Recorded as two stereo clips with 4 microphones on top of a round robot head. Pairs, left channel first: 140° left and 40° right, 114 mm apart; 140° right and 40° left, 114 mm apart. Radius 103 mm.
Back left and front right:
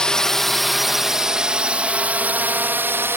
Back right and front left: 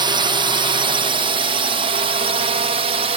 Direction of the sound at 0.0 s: 55° left.